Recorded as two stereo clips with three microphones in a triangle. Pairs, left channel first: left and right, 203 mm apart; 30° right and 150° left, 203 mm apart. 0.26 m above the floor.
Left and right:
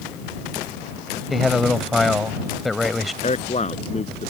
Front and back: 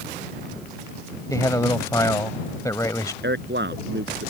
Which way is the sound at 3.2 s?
140° left.